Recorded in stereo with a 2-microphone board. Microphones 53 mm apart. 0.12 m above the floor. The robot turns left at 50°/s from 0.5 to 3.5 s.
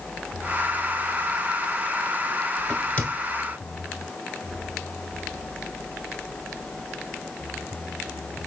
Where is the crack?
10° left (ahead or behind), 1.2 m; by 3.1 s 30° left (ahead or behind), 1.2 m.